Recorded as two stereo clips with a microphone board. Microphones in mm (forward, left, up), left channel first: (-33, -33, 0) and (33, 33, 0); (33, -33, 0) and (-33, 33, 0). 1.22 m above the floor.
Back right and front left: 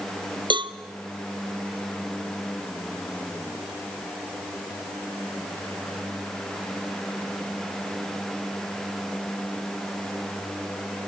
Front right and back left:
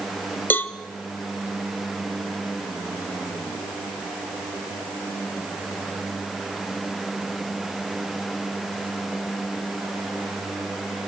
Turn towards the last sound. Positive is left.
turn(degrees=25)